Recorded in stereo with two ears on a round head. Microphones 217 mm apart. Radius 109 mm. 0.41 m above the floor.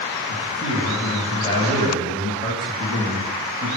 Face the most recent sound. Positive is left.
turn(degrees=20)  # may be behind; listen again after turning